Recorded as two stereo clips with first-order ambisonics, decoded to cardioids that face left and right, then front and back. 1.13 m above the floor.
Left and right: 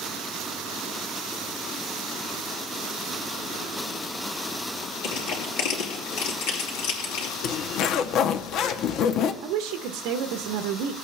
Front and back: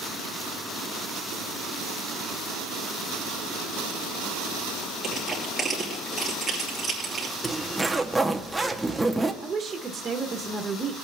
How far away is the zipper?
About 0.6 m.